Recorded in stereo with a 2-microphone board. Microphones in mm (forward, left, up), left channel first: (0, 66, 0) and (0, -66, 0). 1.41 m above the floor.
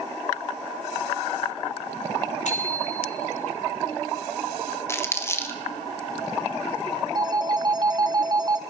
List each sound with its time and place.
2.5 s a bicycle bell: 65° left (ahead or behind), 3.5 m
4.9 s crumpling: 20° left (ahead or behind), 1.5 m
7.2 s a phone ringing: 35° right (ahead or behind), 0.7 m